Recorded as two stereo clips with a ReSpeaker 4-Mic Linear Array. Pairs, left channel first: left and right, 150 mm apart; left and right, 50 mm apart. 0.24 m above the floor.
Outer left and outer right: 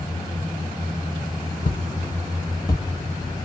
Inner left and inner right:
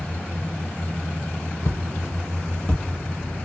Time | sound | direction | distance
1.6 | footsteps | 65° left (ahead or behind) | 1.1 m